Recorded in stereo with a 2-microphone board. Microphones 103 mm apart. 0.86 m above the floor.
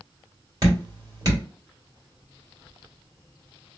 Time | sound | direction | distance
0.6 | dripping | 35° right (ahead or behind) | 2 m